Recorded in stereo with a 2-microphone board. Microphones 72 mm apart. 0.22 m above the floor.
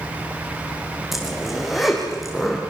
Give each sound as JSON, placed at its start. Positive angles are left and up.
{"t": 1.1, "sound": "a zipper", "side_deg": 0, "distance_m": 6.0}